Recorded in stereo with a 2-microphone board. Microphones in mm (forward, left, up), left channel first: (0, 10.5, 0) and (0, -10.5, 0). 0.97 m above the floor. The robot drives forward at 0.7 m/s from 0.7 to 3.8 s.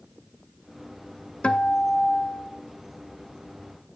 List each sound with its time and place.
1.4 s a guitar: 70° left (ahead or behind), 0.9 m; by 2.5 s 40° left (ahead or behind), 1.4 m